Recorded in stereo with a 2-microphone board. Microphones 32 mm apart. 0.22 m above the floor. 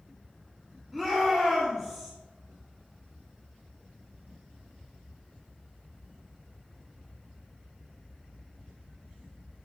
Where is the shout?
10° right (ahead or behind), 1.7 m.